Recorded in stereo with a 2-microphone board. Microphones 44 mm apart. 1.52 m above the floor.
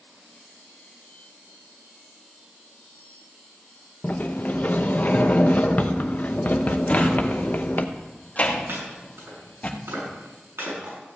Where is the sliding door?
40° left (ahead or behind), 0.8 m.